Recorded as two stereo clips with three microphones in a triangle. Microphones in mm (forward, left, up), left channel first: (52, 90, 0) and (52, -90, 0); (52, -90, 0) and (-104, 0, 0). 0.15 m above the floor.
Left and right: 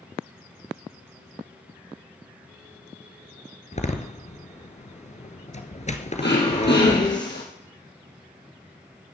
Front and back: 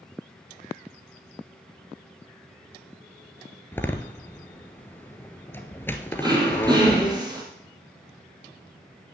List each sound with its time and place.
3.7 s a door slam: 45° left, 1.6 m
6.2 s throat clearing: 85° left, 5 m